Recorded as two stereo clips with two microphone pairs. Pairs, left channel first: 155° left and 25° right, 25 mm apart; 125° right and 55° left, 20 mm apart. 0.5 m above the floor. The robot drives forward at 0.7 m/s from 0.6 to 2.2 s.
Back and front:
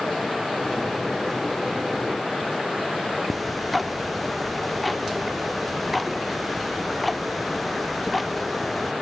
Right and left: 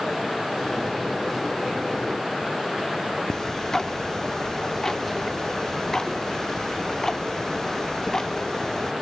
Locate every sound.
3.3 s ticking: 125° right, 0.7 m